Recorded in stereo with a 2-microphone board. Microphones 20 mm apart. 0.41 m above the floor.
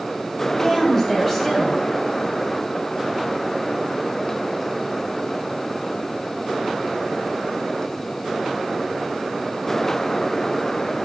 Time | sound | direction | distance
0.5 | a woman speaking | 15° left (ahead or behind) | 2 m